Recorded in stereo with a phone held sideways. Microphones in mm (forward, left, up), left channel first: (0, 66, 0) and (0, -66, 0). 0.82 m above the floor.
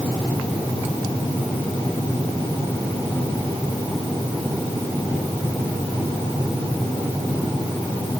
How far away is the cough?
I don't hear a cough.